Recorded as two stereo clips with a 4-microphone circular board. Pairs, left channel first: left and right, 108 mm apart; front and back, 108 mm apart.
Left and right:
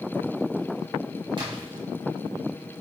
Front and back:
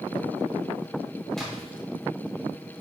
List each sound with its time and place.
1.4 s a splash: 85° right, 1.4 m